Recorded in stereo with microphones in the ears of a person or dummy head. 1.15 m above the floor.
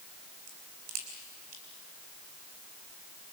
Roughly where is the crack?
Right.